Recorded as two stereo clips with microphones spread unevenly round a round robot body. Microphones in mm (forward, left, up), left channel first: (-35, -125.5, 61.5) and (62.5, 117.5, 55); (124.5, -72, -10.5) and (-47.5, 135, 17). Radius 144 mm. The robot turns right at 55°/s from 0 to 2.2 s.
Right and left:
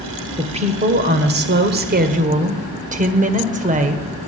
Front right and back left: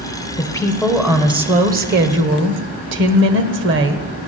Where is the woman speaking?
10° left, 1.4 m; by 4.1 s 110° left, 1.4 m.